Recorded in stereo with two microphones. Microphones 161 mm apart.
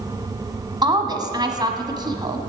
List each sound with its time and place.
0.8 s a woman speaking: 25° right (ahead or behind), 1.2 m